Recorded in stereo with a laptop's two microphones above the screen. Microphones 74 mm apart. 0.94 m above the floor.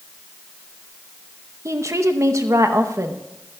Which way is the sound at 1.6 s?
45° right (ahead or behind).